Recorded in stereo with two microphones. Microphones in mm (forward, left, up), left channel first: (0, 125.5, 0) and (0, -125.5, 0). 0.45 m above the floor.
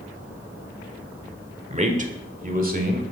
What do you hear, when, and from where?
1.7 s a man speaking: 25° right (ahead or behind), 1.2 m; by 3.0 s 35° right (ahead or behind), 1.8 m